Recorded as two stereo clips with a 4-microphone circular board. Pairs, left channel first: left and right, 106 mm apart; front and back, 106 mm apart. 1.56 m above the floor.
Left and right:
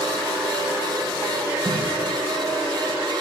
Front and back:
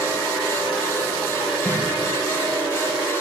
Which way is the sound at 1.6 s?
130° right.